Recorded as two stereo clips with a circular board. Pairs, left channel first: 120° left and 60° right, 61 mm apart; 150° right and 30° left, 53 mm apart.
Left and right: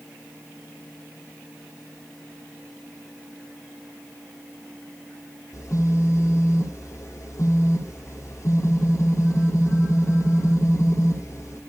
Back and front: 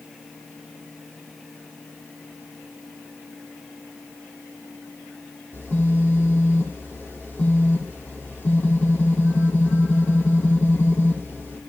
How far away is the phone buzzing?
About 7 m.